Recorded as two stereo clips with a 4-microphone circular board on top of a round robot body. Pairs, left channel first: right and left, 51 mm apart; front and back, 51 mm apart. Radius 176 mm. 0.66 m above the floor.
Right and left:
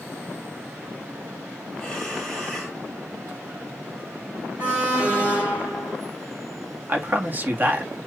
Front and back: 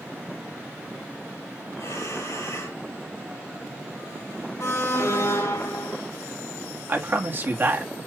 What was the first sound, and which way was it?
Breathing, 5° right.